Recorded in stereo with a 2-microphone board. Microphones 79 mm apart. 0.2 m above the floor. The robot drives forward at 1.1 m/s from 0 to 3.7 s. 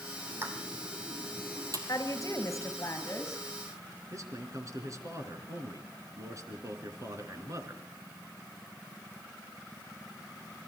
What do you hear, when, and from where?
0.3 s a pop: 30° right (ahead or behind), 4 m; by 1.8 s 45° right (ahead or behind), 2.5 m
1.9 s a woman speaking: 45° left (ahead or behind), 2.5 m; by 3.4 s 30° left (ahead or behind), 4 m
4.1 s a man speaking: 45° right (ahead or behind), 3 m